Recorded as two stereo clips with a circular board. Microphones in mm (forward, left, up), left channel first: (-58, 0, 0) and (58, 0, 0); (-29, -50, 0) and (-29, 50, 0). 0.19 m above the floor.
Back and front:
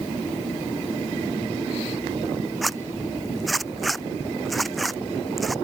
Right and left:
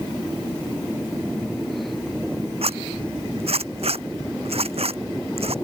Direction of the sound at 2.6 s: 90° left.